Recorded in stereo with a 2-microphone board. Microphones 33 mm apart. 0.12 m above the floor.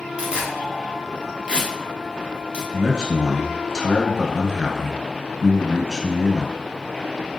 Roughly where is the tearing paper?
Right.